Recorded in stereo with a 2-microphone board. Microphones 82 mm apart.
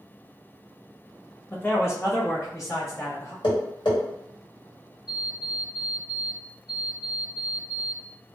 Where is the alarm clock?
55° left (ahead or behind), 1.4 m.